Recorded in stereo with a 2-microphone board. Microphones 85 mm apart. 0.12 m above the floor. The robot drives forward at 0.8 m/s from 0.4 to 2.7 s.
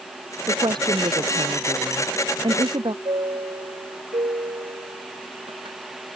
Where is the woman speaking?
60° right (ahead or behind); by 3.0 s 65° right (ahead or behind).